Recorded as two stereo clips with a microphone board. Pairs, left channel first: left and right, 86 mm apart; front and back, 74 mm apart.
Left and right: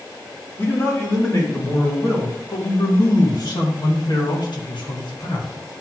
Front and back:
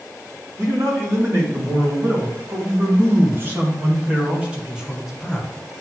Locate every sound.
0.6 s a man speaking: 145° left, 3 m; by 5.5 s 80° left, 1.3 m